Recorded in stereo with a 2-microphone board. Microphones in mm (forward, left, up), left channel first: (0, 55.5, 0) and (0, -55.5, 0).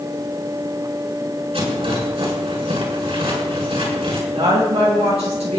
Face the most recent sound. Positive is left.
turn(degrees=-80)